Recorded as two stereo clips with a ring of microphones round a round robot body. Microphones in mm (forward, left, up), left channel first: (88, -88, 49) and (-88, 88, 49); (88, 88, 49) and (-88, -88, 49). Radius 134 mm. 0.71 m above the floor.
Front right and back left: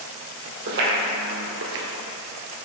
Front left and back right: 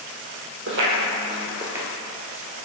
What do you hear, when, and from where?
0.7 s footsteps: straight behind, 1.7 m; by 1.9 s 140° left, 0.9 m